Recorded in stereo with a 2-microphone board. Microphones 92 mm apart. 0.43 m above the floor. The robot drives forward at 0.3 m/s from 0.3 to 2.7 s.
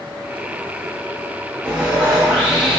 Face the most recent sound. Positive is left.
turn(degrees=-10)  # may be behind; listen again after turning